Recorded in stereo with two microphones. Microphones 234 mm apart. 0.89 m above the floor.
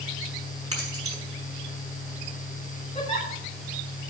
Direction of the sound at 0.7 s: 85° right.